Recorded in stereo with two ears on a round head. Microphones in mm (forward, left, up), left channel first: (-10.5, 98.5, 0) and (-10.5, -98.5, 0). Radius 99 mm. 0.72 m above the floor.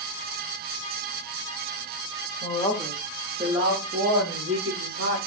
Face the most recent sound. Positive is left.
turn(degrees=-55)  # may be behind; listen again after turning